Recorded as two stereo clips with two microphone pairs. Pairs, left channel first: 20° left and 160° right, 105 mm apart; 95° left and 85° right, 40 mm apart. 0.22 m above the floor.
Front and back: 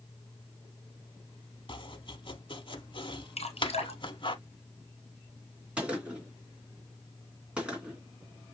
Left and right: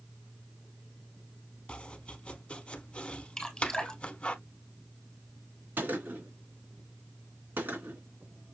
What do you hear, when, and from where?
1.7 s chopping: 45° left, 0.6 m
3.4 s dripping: 20° left, 1.6 m
5.8 s a gunshot: 80° right, 2.5 m